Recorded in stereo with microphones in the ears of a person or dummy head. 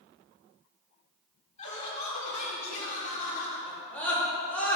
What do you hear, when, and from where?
1.6 s laughter: 45° left (ahead or behind), 3.5 m; by 3.6 s 50° left (ahead or behind), 2.5 m
3.7 s a scream: 15° left (ahead or behind), 3.5 m